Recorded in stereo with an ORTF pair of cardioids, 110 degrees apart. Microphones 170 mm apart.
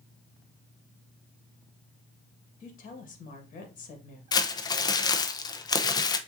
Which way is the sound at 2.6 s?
50° left.